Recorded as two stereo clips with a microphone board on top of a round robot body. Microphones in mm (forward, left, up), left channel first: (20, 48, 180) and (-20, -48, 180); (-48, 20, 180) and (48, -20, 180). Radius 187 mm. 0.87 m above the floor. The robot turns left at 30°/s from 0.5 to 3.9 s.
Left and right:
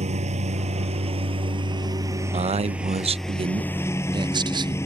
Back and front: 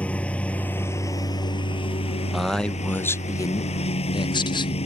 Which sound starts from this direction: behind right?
A lawn mower, at 0.0 s.